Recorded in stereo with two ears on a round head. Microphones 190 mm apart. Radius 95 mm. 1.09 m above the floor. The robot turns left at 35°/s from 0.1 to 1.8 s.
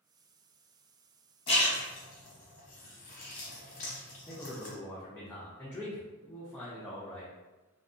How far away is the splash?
About 0.9 m.